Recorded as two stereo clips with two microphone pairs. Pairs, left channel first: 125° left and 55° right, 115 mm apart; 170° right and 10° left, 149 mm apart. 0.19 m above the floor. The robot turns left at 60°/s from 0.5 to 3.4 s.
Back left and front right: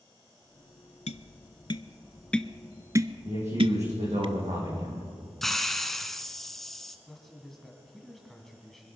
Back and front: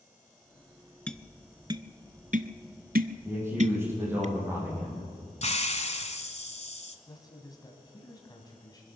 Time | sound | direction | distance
1.1 | tapping | 115° left | 0.5 m
3.2 | a man speaking | 55° right | 7 m
5.4 | a hiss | 145° right | 1.0 m
7.1 | a man speaking | 150° right | 1.8 m